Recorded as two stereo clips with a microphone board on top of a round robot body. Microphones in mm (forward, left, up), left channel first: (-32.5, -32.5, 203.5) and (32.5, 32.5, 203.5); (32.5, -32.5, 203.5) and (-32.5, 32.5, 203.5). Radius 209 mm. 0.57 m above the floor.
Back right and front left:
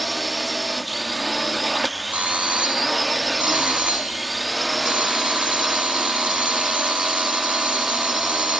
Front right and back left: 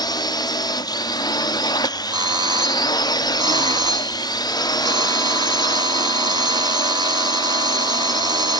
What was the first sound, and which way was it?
A drone, 45° right.